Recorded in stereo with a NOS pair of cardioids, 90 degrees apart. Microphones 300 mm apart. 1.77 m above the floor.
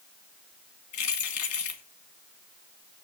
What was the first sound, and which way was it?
Keys jangling, 70° left.